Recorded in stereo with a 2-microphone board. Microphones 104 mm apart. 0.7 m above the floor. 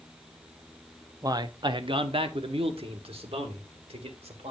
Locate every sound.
1.2 s a man speaking: 35° right (ahead or behind), 0.6 m; by 4.5 s 75° right (ahead or behind), 2.5 m